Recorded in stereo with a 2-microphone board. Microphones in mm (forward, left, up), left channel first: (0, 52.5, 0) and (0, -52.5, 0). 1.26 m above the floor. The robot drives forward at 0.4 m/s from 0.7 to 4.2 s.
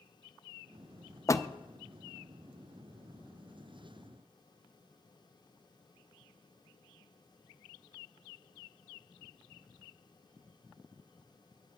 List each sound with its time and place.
1.3 s a door slam: 30° left (ahead or behind), 0.5 m